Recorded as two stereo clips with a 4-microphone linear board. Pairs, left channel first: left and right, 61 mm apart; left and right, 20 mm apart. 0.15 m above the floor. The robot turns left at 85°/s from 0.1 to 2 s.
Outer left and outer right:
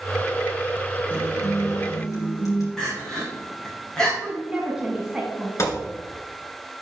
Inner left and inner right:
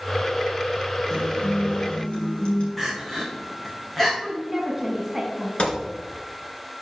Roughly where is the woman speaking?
Centre.